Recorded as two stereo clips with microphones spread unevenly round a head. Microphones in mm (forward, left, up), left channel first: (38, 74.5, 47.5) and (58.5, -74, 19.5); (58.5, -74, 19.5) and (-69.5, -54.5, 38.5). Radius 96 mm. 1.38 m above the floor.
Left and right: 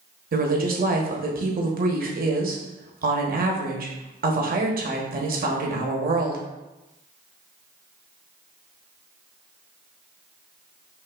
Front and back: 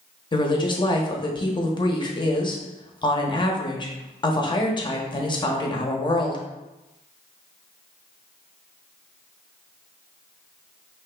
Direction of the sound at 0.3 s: 60° right.